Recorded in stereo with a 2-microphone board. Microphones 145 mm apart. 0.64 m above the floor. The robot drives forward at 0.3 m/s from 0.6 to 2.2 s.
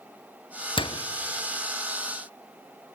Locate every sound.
0.8 s a door slam: 35° left (ahead or behind), 0.8 m